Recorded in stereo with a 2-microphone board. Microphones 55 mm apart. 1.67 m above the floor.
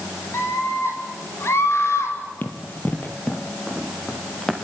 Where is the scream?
55° left (ahead or behind), 8.5 m; by 2.2 s 60° left (ahead or behind), 8.5 m.